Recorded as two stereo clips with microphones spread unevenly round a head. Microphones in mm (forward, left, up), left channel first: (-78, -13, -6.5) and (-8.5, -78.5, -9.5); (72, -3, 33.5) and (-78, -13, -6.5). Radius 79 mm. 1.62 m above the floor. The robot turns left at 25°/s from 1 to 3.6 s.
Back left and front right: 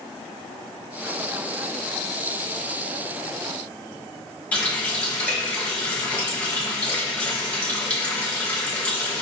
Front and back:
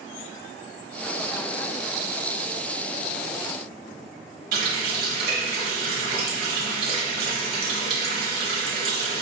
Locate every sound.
4.5 s a running tap: 155° right, 1.0 m